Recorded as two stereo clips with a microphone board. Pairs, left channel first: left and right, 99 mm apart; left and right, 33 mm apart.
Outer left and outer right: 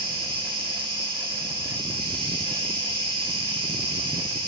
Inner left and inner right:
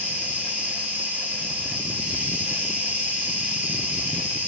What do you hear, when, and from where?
0.0 s an insect: 50° right (ahead or behind), 1.2 m